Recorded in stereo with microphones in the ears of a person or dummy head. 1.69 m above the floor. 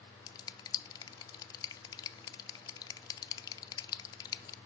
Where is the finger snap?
25° left (ahead or behind), 0.6 m.